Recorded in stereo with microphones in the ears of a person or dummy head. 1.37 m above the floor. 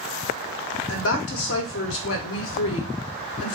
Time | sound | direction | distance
0.9 | a woman speaking | 75° left (ahead or behind) | 0.8 m